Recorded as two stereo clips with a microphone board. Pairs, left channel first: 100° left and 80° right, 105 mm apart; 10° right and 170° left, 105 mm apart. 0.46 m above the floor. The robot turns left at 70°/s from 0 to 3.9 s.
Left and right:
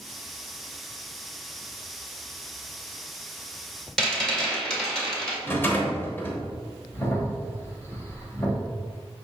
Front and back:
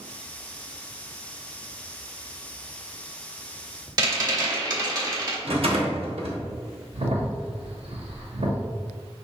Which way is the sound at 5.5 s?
165° left.